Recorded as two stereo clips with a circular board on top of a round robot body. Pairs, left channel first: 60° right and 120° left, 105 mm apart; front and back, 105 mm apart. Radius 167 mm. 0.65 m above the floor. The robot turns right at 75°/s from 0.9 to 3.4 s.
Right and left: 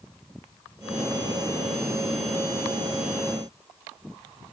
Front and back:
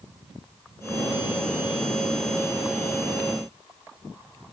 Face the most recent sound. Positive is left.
No sound to turn to.